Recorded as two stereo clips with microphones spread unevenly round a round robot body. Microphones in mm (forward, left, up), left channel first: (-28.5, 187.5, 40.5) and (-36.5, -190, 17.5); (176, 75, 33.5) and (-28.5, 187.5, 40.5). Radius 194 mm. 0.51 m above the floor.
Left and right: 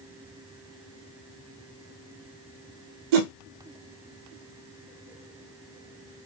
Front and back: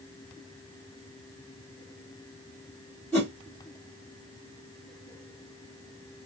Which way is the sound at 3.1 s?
115° right.